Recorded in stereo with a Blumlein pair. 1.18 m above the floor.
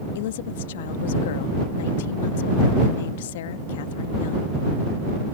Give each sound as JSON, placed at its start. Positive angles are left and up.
{"t": 0.1, "sound": "a woman speaking", "azimuth_deg": 55}